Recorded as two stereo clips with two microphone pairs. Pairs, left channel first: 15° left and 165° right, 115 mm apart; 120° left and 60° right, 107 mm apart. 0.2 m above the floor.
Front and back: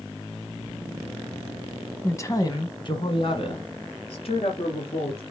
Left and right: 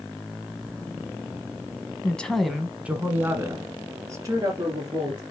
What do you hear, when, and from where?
2.0 s a woman speaking: 55° left, 1.1 m; by 5.2 s 10° right, 3 m